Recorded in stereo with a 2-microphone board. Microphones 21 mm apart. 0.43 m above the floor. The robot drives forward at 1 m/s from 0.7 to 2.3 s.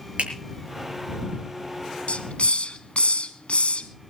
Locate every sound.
0.2 s a finger snap: 80° right, 6.5 m
2.1 s a hiss: 90° left, 1.0 m; by 3.9 s 80° left, 1.0 m